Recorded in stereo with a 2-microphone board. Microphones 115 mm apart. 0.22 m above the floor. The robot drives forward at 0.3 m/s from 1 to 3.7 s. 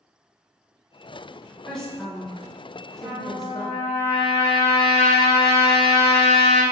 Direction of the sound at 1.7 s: 5° left (ahead or behind).